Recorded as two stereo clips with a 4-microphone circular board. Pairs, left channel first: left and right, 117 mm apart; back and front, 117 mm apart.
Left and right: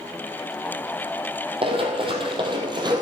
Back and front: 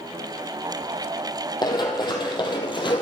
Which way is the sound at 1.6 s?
130° right.